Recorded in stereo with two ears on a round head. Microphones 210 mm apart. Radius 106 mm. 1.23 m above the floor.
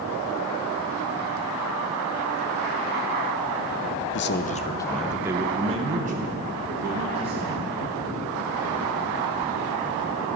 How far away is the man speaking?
About 0.6 m.